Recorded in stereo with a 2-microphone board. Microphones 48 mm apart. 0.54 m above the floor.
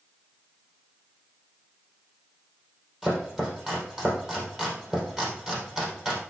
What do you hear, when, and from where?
3.0 s chopping: 15° right (ahead or behind), 4 m